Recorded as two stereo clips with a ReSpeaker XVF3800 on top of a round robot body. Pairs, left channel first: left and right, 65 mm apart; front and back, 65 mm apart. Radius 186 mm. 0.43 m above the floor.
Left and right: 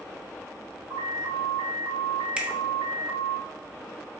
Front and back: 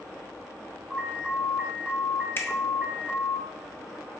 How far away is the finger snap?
About 1.3 m.